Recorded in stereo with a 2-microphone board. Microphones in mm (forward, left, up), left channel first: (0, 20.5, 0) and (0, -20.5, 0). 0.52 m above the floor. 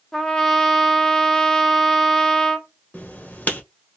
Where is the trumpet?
10° left (ahead or behind), 0.7 m.